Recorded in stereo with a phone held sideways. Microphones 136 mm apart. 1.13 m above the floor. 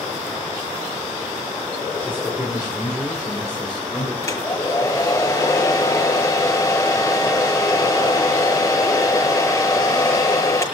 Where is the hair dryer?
25° left (ahead or behind), 6.5 m.